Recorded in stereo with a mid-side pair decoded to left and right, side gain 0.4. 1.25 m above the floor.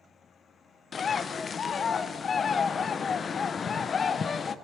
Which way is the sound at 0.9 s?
50° left.